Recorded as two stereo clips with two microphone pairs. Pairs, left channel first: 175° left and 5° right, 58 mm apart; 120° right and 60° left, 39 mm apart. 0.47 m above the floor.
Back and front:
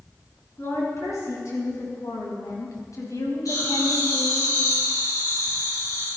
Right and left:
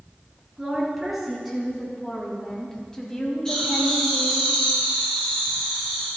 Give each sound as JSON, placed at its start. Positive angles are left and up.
{"t": 0.6, "sound": "a woman speaking", "azimuth_deg": 145, "distance_m": 6.5}
{"t": 3.5, "sound": "laughter", "azimuth_deg": 170, "distance_m": 5.5}